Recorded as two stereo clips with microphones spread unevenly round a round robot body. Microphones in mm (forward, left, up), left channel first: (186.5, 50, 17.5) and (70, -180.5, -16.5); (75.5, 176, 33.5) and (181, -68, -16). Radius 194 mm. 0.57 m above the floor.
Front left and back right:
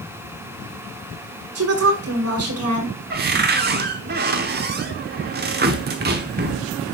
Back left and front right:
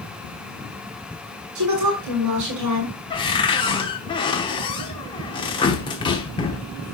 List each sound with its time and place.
1.6 s a woman speaking: 95° right, 6 m
3.1 s a cupboard door: 165° right, 0.6 m